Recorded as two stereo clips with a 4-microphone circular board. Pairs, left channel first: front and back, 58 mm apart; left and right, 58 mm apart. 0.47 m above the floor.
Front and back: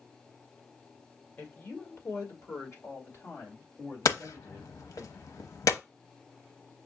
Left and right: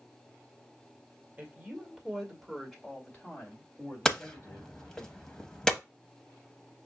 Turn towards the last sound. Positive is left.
turn(degrees=10)